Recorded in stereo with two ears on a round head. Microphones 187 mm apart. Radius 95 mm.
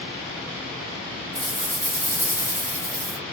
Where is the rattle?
15° right (ahead or behind), 2.5 m.